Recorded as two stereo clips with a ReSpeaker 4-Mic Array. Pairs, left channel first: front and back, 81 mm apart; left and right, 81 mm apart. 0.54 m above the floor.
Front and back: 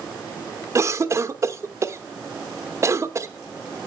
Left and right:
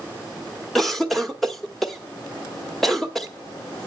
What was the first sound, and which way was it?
A cough, 175° left.